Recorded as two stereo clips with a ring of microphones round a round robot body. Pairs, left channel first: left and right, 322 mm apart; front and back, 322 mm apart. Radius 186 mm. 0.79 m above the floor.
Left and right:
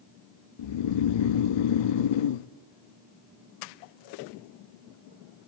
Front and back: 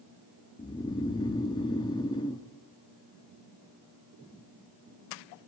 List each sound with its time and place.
0.6 s snoring: 80° left, 0.5 m